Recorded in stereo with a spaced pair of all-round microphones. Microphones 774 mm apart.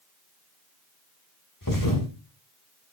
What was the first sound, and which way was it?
A thud, 25° left (ahead or behind).